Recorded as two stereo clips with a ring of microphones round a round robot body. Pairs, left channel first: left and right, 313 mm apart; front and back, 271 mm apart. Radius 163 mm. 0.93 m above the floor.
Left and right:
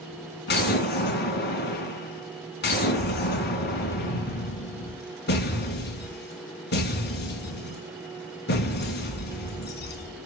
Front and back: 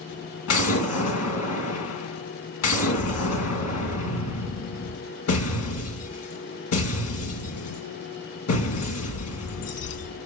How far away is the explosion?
About 3 m.